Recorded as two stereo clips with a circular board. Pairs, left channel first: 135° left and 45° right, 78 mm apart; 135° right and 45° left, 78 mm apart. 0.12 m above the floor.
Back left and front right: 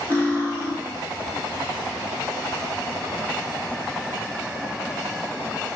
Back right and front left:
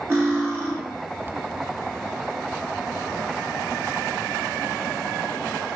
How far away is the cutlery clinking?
About 1.0 m.